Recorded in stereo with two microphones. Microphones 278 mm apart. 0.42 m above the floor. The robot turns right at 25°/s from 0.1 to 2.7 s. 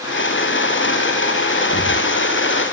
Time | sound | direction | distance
1.6 | breathing | 70° left (ahead or behind) | 4.5 m